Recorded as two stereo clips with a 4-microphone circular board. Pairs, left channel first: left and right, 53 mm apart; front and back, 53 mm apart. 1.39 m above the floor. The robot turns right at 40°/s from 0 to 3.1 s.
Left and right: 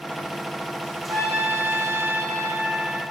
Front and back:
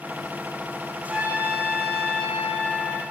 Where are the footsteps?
No footsteps in this recording.